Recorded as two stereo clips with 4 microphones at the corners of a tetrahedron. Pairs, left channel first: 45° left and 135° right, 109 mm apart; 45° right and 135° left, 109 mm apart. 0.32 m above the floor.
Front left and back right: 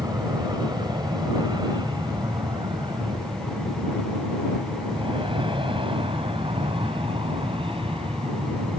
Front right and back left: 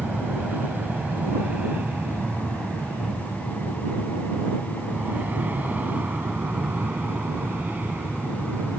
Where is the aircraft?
155° right; by 8.8 s 150° right.